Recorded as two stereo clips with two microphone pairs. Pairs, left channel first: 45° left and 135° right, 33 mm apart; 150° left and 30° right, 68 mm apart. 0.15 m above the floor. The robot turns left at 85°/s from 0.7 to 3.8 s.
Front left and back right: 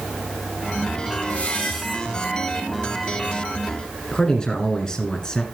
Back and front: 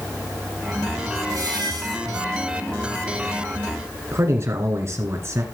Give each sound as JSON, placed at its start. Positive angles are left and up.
{"t": 1.3, "sound": "a squeak", "azimuth_deg": 5, "distance_m": 3.0}
{"t": 4.1, "sound": "a man speaking", "azimuth_deg": -15, "distance_m": 1.6}